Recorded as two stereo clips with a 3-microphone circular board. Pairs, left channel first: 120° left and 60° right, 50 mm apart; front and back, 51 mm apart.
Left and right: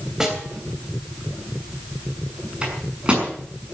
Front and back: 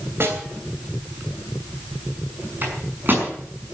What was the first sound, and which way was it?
A snare drum, 140° right.